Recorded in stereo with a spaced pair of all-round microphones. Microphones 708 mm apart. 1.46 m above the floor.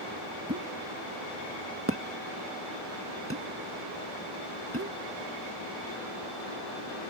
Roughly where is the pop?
Centre.